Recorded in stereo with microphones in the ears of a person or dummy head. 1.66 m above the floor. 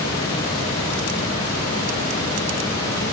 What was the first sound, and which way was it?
Only background noise.